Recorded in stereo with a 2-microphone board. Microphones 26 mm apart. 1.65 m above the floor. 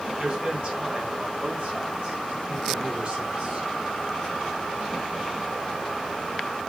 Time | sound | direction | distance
0.2 | a man speaking | 55° right (ahead or behind) | 4.5 m